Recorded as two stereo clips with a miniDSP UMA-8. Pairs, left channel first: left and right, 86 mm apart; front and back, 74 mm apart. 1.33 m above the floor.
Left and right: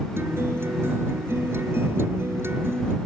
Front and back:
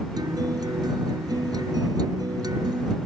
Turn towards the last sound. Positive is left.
turn(degrees=-155)